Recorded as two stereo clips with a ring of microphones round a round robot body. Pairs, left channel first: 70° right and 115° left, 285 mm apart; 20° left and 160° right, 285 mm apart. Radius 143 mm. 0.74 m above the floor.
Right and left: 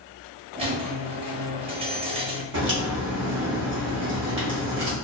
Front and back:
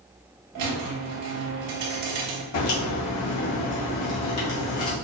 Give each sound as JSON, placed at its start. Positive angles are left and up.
{"t": 0.6, "sound": "a squeak", "azimuth_deg": 180, "distance_m": 0.6}
{"t": 2.5, "sound": "a crack", "azimuth_deg": 65, "distance_m": 1.1}